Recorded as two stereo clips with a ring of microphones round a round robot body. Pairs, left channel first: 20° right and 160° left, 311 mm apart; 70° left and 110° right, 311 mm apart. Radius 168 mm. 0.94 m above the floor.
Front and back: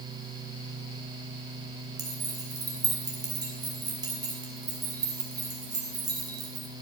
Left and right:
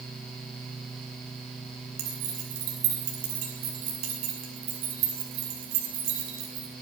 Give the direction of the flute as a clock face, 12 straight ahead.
No flute in this recording.